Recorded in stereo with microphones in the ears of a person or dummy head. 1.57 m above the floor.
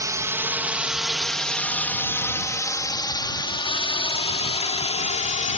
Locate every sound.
0.0 s a drone: 20° right (ahead or behind); by 5.6 s 35° left (ahead or behind)